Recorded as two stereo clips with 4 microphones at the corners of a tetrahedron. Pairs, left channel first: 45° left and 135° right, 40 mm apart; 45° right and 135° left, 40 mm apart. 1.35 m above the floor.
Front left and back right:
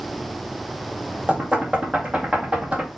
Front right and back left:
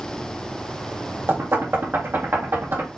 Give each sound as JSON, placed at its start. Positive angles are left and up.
{"t": 1.3, "sound": "knocking", "azimuth_deg": 160, "distance_m": 2.0}